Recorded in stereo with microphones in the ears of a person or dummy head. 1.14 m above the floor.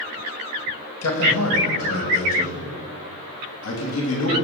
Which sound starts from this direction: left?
A man speaking, at 1.0 s.